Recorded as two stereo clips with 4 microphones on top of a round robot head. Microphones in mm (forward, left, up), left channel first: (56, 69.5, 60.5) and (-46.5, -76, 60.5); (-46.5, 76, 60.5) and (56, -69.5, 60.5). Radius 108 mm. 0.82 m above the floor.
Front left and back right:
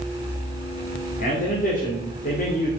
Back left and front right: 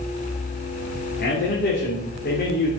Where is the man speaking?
95° left, 3 m.